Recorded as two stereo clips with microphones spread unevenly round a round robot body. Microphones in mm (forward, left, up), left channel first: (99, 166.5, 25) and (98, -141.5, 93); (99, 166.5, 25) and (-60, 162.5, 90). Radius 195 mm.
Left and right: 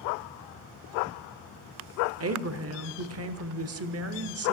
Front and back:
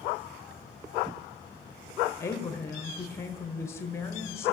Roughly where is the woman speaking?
Ahead right.